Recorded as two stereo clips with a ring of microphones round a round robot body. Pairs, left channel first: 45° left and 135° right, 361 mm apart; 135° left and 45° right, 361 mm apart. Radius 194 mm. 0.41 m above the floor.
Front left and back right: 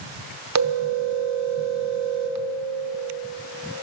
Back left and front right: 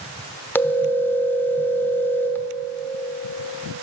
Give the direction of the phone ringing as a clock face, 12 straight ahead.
5 o'clock.